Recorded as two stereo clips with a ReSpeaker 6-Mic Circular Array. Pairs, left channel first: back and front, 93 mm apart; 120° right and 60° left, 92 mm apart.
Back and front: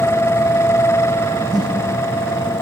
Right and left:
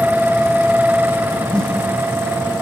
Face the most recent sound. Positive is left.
turn(degrees=-40)